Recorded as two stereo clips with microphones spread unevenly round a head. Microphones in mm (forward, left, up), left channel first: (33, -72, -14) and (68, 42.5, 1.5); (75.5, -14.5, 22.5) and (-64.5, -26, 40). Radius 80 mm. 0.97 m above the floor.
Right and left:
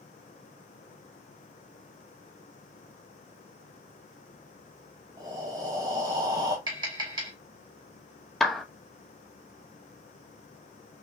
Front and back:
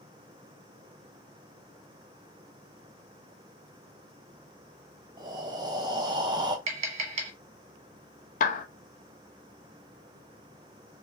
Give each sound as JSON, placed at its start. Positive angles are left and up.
{"t": 5.2, "sound": "breathing", "azimuth_deg": 130, "distance_m": 0.9}
{"t": 6.7, "sound": "tapping", "azimuth_deg": 140, "distance_m": 1.3}
{"t": 8.4, "sound": "a clap", "azimuth_deg": -20, "distance_m": 0.8}